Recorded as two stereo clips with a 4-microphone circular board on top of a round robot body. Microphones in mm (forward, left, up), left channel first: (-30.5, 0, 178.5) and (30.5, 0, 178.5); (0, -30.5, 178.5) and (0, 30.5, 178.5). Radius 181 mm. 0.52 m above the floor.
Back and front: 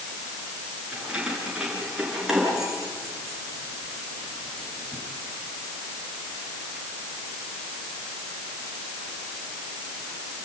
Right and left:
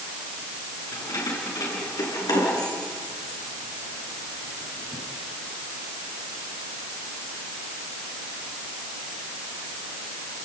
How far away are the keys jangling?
About 7 m.